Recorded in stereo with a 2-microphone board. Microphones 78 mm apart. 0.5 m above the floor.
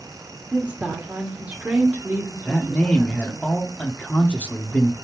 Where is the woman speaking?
20° right (ahead or behind), 1.5 m.